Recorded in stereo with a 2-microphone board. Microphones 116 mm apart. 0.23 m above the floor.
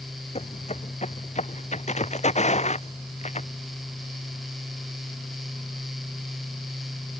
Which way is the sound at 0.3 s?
70° left (ahead or behind).